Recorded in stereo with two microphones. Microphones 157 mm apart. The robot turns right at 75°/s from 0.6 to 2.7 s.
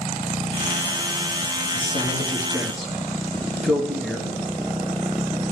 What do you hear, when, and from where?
1.7 s a man speaking: 50° left (ahead or behind), 2.5 m; by 4.4 s centre (ahead or behind), 2.5 m